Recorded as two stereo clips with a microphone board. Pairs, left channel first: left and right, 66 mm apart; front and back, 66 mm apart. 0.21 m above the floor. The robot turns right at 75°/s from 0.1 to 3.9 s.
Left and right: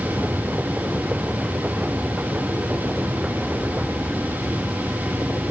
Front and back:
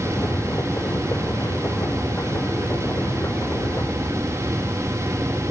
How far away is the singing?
I don't hear singing.